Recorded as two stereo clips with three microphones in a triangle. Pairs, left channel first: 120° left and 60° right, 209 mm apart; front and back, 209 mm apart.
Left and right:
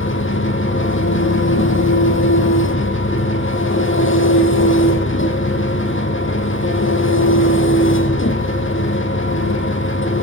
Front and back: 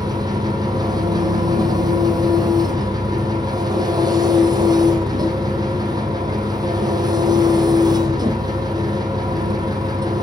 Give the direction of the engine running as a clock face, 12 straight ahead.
8 o'clock.